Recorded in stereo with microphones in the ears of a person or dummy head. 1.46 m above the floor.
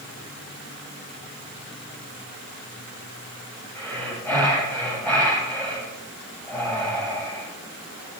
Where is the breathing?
10° left (ahead or behind), 6.5 m.